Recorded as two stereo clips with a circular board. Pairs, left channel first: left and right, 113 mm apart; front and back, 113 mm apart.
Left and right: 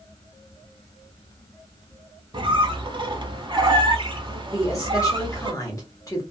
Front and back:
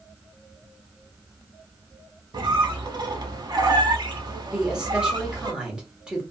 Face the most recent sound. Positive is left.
turn(degrees=105)